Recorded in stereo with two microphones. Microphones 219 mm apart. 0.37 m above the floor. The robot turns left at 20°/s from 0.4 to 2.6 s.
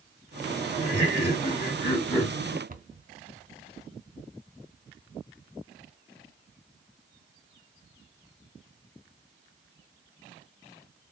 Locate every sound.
0.8 s laughter: 45° left, 1.6 m; by 2.6 s 10° left, 1.6 m
2.7 s a cupboard door: 40° right (ahead or behind), 0.6 m